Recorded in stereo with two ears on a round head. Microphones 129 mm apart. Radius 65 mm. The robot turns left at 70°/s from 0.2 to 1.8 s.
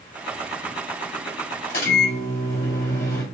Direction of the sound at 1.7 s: 65° left (ahead or behind).